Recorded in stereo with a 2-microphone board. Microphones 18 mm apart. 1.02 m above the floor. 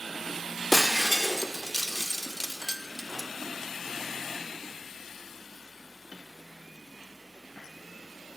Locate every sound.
0.7 s breaking glass: 20° left (ahead or behind), 0.7 m